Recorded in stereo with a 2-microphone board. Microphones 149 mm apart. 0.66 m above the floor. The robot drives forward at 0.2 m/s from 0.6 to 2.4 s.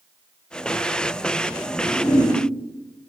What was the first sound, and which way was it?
A whoosh, 35° left (ahead or behind).